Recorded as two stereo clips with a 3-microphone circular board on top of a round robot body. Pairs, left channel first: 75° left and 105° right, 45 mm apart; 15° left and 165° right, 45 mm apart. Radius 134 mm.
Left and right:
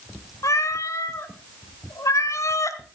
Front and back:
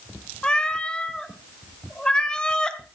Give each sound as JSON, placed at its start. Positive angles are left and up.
{"t": 0.4, "sound": "a cat meowing", "azimuth_deg": 90, "distance_m": 1.2}